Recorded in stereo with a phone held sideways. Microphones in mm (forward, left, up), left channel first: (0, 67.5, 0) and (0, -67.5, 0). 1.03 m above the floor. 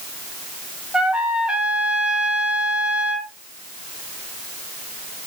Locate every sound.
0.9 s a trumpet: 10° right (ahead or behind), 1.4 m